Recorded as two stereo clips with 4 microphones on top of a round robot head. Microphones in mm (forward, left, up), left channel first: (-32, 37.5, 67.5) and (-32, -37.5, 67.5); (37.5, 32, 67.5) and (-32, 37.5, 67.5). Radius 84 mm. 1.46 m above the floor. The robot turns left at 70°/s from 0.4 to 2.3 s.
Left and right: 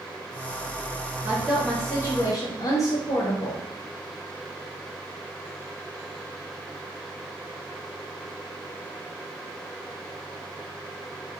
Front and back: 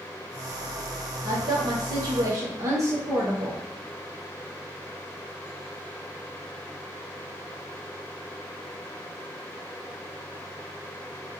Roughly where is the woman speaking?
Behind right.